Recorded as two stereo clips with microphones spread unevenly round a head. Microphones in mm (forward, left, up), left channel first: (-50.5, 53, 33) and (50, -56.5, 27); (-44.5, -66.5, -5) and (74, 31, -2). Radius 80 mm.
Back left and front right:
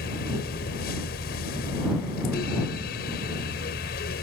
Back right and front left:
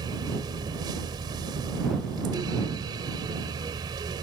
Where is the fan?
105° left.